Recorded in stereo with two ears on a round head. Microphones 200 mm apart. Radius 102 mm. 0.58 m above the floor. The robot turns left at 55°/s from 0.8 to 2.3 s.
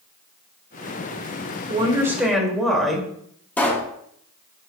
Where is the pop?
10° left (ahead or behind), 1.1 m.